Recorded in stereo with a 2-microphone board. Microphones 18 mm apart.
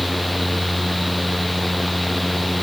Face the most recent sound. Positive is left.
No sound to turn to.